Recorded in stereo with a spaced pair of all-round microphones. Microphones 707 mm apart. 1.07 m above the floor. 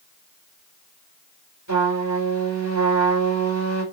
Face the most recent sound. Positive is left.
turn(degrees=-25)  # may be behind; listen again after turning